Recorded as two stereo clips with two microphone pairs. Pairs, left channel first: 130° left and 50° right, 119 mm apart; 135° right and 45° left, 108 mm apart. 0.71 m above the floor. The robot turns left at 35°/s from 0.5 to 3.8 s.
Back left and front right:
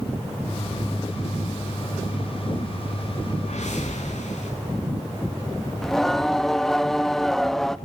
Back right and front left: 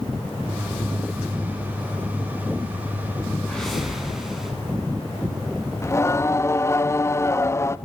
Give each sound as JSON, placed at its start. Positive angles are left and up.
{"t": 3.4, "sound": "a whoosh", "azimuth_deg": 145, "distance_m": 7.5}
{"t": 5.8, "sound": "singing", "azimuth_deg": -145, "distance_m": 0.7}